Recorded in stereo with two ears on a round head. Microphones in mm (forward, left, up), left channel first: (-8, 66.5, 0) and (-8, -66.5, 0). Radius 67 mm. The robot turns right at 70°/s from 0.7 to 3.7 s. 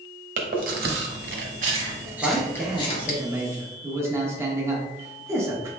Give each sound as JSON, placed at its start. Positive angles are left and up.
{"t": 0.4, "sound": "chewing", "side_deg": -65, "distance_m": 0.8}
{"t": 2.2, "sound": "a man speaking", "side_deg": 5, "distance_m": 0.8}